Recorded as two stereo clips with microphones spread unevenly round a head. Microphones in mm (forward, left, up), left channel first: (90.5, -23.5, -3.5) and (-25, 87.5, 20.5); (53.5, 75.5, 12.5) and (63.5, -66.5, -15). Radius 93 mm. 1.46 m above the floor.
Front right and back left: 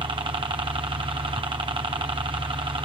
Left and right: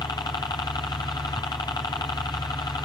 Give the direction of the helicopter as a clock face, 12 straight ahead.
7 o'clock.